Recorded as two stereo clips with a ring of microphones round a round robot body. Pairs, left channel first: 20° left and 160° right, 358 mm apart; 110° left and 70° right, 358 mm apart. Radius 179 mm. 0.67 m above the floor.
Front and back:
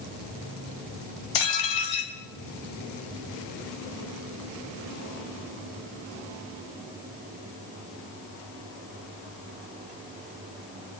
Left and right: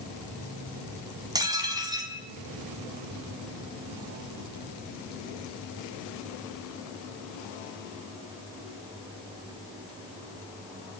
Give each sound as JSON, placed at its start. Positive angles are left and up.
{"t": 1.4, "sound": "dishes clattering", "azimuth_deg": 10, "distance_m": 3.5}